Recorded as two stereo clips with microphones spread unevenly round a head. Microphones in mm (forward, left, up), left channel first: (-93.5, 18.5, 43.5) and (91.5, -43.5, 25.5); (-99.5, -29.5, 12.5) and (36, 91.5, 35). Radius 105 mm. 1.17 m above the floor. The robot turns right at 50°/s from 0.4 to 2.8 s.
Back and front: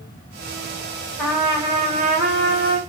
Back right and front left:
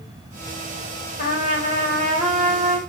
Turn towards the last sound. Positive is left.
turn(degrees=-25)